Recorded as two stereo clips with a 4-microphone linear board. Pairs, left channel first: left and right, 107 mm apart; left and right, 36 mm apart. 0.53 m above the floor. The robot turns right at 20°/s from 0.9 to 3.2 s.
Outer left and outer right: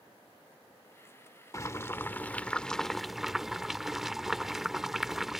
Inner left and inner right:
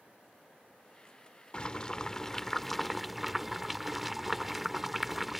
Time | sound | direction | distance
1.5 | boiling | 150° left | ?